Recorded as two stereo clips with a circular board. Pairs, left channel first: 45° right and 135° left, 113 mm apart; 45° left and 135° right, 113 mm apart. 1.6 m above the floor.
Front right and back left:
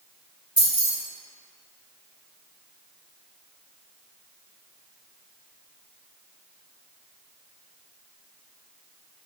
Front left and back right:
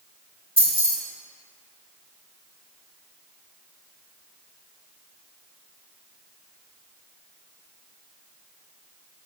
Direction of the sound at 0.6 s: 150° right.